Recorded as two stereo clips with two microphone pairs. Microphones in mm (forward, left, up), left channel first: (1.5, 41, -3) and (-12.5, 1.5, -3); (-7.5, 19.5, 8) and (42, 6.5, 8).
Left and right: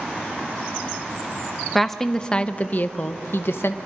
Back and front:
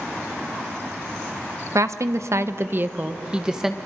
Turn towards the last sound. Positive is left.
turn(degrees=65)